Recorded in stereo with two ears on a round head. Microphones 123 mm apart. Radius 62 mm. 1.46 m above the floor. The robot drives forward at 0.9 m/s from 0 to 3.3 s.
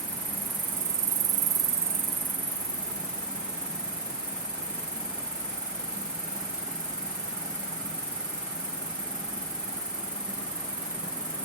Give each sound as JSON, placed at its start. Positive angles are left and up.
{"t": 0.0, "sound": "an insect", "side_deg": -10, "distance_m": 1.3}